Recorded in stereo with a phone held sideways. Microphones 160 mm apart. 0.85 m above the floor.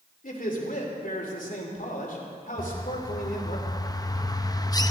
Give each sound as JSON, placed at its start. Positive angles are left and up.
{"t": 0.2, "sound": "a man speaking", "side_deg": 60, "distance_m": 2.5}
{"t": 2.6, "sound": "a bird", "side_deg": 25, "distance_m": 0.6}